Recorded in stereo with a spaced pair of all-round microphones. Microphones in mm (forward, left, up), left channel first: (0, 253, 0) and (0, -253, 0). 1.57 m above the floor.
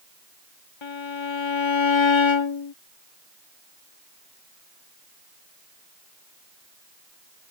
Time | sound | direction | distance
0.8 | a violin | 65° left (ahead or behind) | ?